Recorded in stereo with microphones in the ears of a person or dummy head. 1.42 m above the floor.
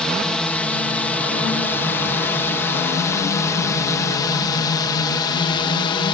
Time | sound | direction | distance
0.0 | a drone | 5° left (ahead or behind) | ?